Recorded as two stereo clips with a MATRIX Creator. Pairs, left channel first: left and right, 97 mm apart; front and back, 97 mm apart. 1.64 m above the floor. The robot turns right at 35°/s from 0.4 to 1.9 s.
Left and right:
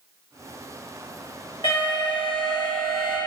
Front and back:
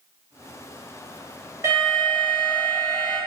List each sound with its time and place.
1.6 s an alarm: 120° left, 1.2 m; by 3.2 s 130° left, 1.2 m